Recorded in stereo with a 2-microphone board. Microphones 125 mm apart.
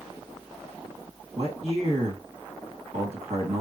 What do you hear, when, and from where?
1.4 s a man speaking: 45° right (ahead or behind), 2 m